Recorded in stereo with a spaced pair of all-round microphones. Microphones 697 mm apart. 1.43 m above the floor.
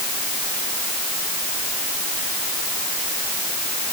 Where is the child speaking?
No child speaking in this recording.